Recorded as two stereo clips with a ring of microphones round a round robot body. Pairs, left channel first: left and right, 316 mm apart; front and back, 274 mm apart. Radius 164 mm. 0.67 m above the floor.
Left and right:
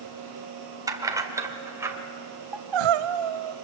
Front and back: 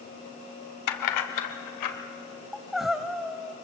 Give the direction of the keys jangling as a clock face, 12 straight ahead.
12 o'clock.